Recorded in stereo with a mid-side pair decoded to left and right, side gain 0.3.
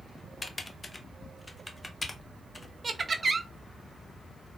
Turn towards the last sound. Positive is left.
turn(degrees=-50)